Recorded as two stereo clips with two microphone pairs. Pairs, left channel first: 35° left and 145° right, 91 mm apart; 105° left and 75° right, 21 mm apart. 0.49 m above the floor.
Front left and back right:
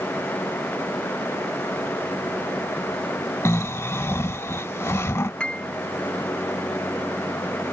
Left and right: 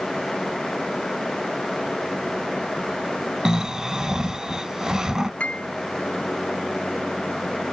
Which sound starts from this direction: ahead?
Snoring, at 3.5 s.